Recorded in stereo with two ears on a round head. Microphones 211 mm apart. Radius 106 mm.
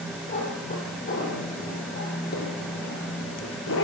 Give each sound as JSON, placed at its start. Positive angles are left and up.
{"t": 0.3, "sound": "a cat meowing", "side_deg": 30, "distance_m": 7.5}